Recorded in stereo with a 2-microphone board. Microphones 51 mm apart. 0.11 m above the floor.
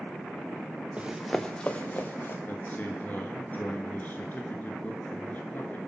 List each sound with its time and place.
1.0 s running footsteps: 25° right (ahead or behind), 1.0 m; by 2.4 s 35° left (ahead or behind), 2 m
2.5 s a man speaking: 35° left (ahead or behind), 1.4 m